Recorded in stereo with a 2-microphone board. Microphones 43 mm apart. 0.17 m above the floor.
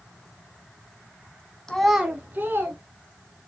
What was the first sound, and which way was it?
A child speaking, 15° left (ahead or behind).